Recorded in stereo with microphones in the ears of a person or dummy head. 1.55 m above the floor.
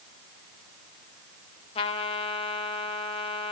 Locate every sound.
1.8 s a trumpet: 25° left (ahead or behind), 0.9 m